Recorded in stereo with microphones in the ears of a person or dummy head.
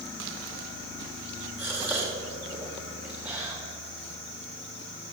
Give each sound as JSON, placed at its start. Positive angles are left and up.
{"t": 1.6, "sound": "a gasp", "side_deg": -10, "distance_m": 1.5}